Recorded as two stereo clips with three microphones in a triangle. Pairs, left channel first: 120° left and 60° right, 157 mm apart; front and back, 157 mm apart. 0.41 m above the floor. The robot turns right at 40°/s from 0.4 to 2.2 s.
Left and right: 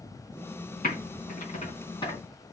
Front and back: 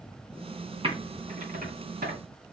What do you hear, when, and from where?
0.8 s typing on a keyboard: 130° left, 3 m; by 2.2 s straight behind, 3 m